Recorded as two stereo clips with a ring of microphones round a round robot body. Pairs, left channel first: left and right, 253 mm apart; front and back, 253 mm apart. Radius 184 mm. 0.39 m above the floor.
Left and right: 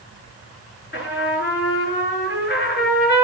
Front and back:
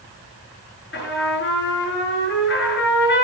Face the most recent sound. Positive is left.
turn(degrees=45)